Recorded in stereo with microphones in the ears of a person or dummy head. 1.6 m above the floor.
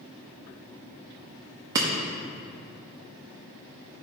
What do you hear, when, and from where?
1.8 s breaking glass: 15° right (ahead or behind), 1.1 m